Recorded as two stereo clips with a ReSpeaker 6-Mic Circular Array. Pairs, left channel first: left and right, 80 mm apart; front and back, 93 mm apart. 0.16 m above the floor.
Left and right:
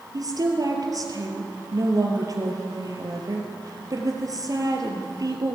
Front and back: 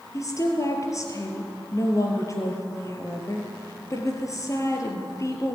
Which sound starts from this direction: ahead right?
A woman speaking, at 0.1 s.